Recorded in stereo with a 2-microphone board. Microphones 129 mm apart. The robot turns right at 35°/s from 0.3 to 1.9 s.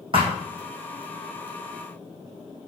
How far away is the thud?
About 3 m.